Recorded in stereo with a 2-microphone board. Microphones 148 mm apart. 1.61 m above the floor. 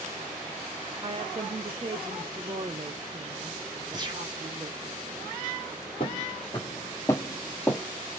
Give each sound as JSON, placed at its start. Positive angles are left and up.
{"t": 1.0, "sound": "a woman speaking", "side_deg": -35, "distance_m": 0.6}
{"t": 3.9, "sound": "a gunshot", "side_deg": -30, "distance_m": 1.5}
{"t": 6.0, "sound": "footsteps", "side_deg": 35, "distance_m": 2.0}